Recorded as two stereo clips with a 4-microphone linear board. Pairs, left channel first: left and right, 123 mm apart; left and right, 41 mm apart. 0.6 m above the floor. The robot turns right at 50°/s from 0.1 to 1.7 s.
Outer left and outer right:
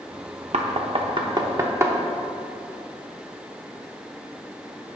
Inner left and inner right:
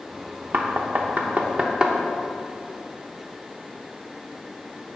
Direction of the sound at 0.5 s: 60° right (ahead or behind).